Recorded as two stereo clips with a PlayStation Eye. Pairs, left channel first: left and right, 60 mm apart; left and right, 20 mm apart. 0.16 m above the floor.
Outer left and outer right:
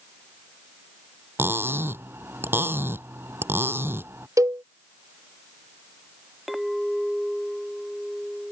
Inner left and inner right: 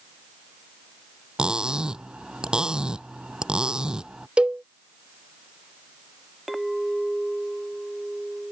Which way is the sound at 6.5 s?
Centre (ahead or behind).